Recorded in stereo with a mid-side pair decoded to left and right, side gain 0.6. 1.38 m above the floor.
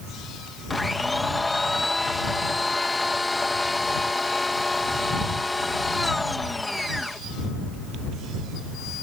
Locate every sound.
0.7 s a blender: 15° left